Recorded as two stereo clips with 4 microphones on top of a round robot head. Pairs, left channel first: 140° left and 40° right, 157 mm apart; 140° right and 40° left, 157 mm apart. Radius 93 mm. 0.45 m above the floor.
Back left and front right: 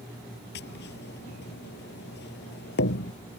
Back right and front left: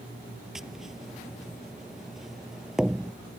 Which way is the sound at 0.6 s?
125° left.